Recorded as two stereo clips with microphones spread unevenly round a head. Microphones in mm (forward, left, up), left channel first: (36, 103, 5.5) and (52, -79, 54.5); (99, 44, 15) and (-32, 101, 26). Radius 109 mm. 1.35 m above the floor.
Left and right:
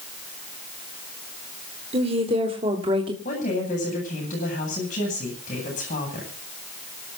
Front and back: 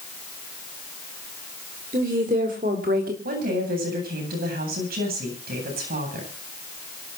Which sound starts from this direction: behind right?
A woman speaking, at 1.9 s.